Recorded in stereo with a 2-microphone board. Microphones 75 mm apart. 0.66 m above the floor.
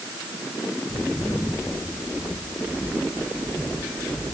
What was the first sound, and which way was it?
Footsteps, 60° left (ahead or behind).